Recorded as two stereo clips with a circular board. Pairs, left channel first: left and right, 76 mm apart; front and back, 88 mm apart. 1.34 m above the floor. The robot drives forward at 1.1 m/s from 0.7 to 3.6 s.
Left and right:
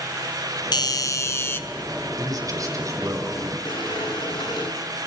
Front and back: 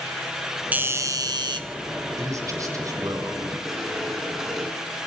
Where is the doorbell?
110° left, 0.8 m; by 1.6 s 150° left, 1.5 m.